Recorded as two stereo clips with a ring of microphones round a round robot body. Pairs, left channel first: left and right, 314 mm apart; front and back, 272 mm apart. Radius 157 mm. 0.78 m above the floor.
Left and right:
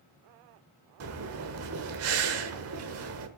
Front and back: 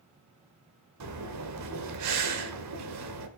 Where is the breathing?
135° right, 1.4 m.